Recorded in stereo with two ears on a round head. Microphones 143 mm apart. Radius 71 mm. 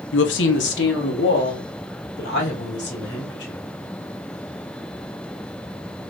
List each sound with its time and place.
0.1 s a woman speaking: 90° left, 0.5 m; by 3.6 s 80° left, 3 m